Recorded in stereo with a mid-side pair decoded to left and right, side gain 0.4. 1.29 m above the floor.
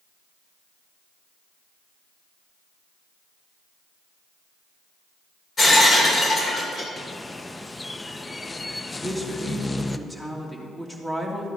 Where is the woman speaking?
15° left, 2.5 m.